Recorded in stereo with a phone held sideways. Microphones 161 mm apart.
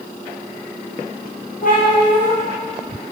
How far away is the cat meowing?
About 2.5 m.